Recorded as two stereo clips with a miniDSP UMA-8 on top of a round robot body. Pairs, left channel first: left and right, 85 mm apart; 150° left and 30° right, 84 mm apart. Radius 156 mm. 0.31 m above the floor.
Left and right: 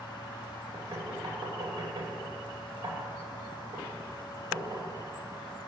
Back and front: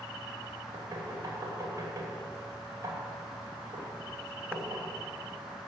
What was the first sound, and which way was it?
Knocking, 75° right.